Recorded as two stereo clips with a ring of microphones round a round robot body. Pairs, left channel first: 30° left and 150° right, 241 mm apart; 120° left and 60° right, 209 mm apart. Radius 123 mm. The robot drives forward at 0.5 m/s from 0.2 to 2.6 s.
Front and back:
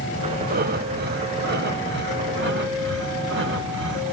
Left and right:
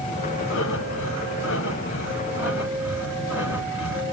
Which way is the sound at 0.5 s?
155° left.